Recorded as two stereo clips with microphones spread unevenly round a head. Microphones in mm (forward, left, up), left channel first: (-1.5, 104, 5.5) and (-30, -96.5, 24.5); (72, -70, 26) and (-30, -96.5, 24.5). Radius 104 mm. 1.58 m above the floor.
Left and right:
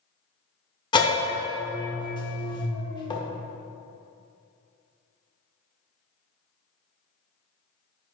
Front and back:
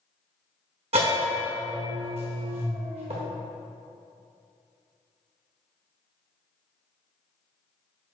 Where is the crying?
No crying in this recording.